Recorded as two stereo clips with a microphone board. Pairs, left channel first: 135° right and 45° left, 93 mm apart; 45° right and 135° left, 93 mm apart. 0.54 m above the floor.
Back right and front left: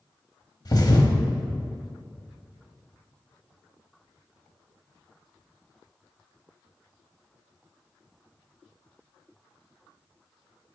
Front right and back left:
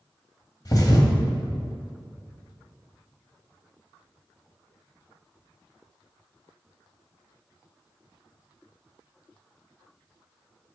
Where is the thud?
90° right, 1.2 m.